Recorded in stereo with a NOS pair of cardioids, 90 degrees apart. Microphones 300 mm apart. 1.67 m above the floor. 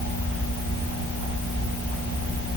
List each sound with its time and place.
Only background noise.